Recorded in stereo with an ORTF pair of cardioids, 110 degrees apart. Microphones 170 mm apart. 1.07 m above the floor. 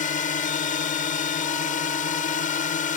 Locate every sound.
0.0 s a drone: 50° left